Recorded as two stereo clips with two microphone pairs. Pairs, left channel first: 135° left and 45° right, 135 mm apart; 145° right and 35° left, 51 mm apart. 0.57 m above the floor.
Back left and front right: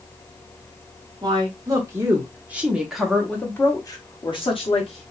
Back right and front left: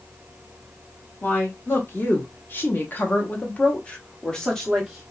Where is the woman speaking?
100° right, 1.5 m; by 5.1 s 130° left, 1.1 m.